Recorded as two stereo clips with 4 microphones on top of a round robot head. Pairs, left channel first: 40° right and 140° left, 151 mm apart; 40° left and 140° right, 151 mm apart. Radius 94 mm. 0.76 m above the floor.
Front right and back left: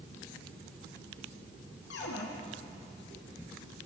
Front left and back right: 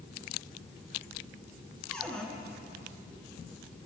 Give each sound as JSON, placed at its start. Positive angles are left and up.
{"t": 1.9, "sound": "a cupboard door", "azimuth_deg": -45, "distance_m": 4.5}